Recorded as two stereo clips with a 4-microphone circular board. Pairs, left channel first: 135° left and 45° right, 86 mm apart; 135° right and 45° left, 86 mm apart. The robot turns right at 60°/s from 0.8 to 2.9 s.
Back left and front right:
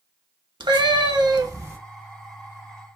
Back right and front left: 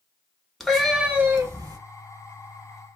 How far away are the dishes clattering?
No dishes clattering in this recording.